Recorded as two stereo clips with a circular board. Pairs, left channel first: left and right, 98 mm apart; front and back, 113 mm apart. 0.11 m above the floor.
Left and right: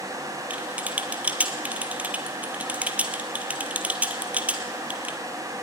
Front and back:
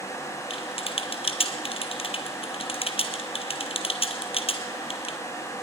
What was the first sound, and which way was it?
Typing on a keyboard, 15° right.